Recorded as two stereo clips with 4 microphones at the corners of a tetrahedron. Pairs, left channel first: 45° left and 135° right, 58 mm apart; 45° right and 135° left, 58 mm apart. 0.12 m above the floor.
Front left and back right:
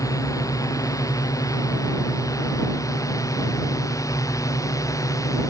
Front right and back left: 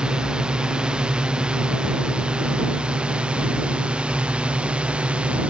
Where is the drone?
60° left; by 5.5 s 65° left.